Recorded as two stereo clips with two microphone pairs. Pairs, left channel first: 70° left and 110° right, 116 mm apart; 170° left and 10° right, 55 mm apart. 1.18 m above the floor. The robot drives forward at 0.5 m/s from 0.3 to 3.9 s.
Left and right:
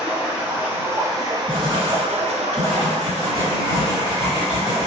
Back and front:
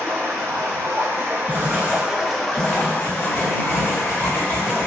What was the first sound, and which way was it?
Running water, 30° right.